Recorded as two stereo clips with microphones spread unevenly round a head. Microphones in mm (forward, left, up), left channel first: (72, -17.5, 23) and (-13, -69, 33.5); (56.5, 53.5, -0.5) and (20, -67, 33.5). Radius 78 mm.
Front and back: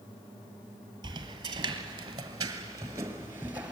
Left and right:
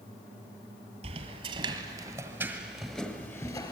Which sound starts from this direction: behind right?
Footsteps, at 1.0 s.